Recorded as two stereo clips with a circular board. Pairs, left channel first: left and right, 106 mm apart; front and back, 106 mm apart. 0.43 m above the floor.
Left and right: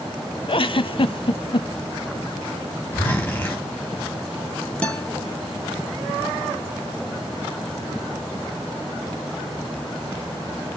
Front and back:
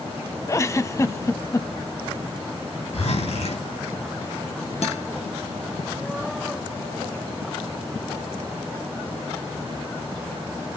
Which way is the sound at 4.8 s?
10° left.